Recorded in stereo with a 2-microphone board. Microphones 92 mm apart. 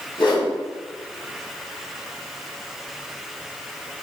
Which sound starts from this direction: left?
A whoosh, at 0.2 s.